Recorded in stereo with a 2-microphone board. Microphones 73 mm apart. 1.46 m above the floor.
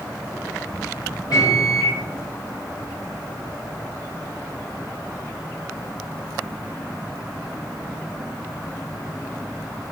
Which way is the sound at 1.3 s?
60° left (ahead or behind).